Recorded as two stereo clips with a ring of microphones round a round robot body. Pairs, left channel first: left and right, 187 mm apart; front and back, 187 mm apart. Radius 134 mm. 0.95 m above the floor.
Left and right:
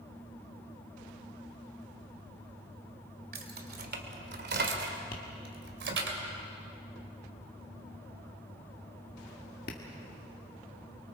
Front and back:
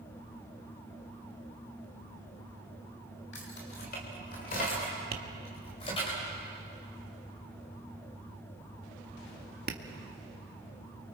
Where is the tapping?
145° left, 1.7 m.